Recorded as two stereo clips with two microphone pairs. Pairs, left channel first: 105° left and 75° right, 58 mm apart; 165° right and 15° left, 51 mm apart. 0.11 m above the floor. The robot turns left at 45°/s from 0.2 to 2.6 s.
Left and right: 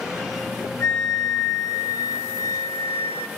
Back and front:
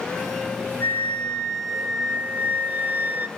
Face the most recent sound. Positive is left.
turn(degrees=65)